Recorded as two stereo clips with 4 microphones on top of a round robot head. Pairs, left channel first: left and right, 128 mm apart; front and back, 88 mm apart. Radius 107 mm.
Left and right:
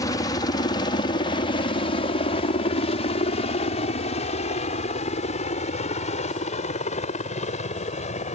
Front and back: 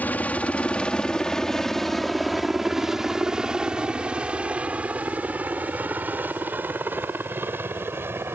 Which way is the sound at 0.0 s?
55° left.